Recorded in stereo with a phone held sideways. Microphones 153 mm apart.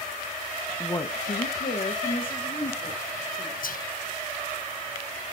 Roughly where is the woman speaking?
Centre.